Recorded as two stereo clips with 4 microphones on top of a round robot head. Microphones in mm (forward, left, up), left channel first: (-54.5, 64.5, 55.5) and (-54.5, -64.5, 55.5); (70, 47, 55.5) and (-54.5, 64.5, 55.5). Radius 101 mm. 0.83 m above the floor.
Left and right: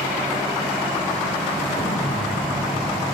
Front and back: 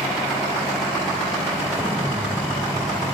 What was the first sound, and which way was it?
An explosion, 105° left.